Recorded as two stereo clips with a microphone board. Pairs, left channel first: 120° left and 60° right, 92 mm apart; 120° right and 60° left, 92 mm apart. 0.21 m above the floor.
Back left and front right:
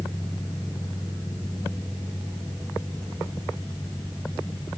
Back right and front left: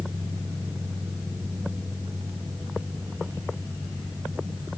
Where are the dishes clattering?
I don't hear dishes clattering.